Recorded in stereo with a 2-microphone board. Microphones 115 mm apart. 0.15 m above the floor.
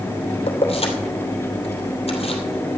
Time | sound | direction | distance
0.5 | keys jangling | 65° left (ahead or behind) | 2.5 m